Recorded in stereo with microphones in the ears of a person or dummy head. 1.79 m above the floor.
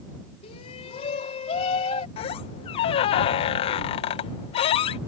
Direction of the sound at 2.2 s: 35° left (ahead or behind).